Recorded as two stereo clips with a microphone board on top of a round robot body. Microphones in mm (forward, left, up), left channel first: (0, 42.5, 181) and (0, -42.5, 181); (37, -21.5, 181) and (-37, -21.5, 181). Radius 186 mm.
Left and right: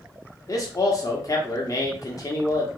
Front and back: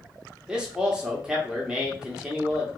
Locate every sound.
0.5 s a man speaking: 105° left, 1.2 m